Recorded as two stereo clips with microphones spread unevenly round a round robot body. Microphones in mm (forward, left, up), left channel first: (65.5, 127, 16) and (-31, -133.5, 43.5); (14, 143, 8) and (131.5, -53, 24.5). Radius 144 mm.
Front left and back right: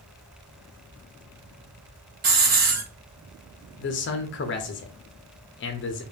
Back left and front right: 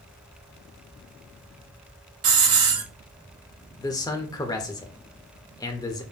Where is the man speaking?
55° left, 0.5 m.